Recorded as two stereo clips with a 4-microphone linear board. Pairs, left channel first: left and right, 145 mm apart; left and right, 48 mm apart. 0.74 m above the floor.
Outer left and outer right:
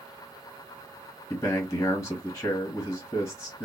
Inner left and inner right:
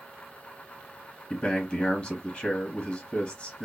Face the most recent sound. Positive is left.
turn(degrees=20)  # may be behind; listen again after turning